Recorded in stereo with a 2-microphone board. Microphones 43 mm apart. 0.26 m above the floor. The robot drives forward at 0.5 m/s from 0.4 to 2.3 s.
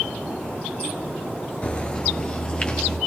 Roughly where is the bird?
Left.